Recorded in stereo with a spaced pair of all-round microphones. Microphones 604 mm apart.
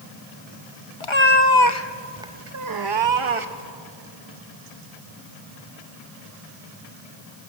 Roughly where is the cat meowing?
Left.